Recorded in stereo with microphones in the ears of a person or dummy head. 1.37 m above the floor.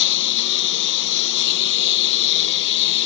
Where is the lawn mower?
65° left (ahead or behind).